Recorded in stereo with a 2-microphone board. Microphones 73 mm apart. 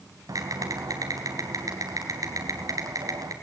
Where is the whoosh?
I don't hear a whoosh.